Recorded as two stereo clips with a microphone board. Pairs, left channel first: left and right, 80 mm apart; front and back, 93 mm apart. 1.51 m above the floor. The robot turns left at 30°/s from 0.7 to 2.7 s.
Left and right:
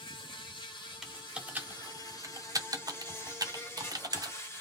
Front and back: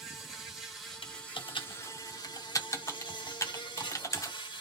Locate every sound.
0.0 s an insect: 90° left, 1.1 m; by 4.6 s 30° left, 1.1 m
1.0 s typing on a keyboard: 5° right, 0.5 m; by 4.3 s 55° right, 0.5 m